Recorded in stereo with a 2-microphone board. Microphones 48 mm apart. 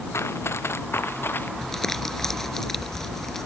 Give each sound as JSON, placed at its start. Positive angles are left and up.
{"t": 0.1, "sound": "running footsteps", "side_deg": 65}
{"t": 1.6, "sound": "crumpling", "side_deg": 5}